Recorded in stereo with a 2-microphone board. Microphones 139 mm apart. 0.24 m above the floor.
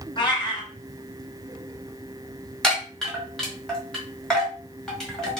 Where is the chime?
5° left (ahead or behind), 1.3 m.